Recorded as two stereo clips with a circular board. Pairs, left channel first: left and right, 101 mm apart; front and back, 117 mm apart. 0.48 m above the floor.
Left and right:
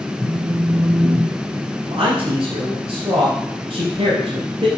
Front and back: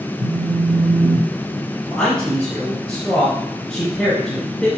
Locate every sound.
0.2 s a phone buzzing: 170° right, 1.1 m
1.8 s a man speaking: 85° right, 3 m